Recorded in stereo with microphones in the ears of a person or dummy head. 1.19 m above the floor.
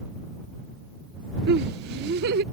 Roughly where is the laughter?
Right.